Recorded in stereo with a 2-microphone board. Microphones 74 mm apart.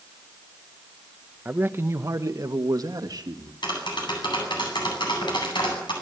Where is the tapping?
85° left, 9.5 m.